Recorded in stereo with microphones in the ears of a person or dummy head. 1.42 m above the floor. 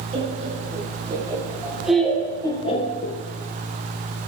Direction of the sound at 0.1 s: 30° right (ahead or behind).